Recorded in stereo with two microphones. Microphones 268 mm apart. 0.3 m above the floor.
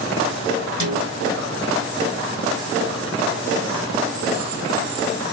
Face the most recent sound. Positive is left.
turn(degrees=-80)